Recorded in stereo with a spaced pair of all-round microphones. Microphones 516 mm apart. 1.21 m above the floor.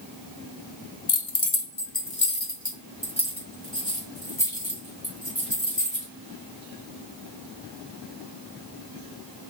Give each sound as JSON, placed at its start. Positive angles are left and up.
{"t": 1.1, "sound": "keys jangling", "side_deg": 50, "distance_m": 0.5}